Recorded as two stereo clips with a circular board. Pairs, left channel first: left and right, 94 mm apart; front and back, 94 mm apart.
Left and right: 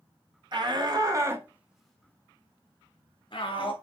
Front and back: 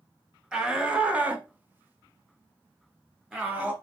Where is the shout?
100° right, 2.5 m; by 3.7 s 105° left, 3 m.